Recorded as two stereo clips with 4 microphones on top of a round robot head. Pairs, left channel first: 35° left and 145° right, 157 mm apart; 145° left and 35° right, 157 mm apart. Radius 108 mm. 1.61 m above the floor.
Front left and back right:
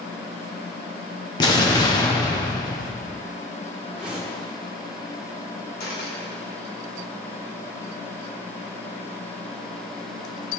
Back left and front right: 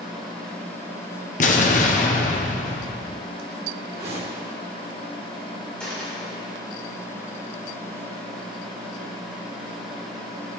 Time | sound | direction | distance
1.4 | an explosion | 100° left | 1.0 m
3.9 | a whoosh | 60° right | 1.6 m
5.8 | a dropped coin | 60° left | 2 m